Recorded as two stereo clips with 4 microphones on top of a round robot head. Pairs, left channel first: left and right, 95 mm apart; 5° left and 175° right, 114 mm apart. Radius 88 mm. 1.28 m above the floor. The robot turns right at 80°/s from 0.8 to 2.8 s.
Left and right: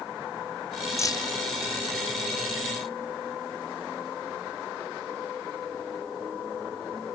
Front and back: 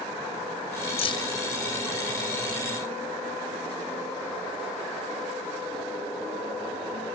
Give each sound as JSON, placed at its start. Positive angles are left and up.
{"t": 1.0, "sound": "keys jangling", "azimuth_deg": 35}